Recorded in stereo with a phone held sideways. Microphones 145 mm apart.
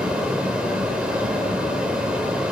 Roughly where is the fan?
Centre.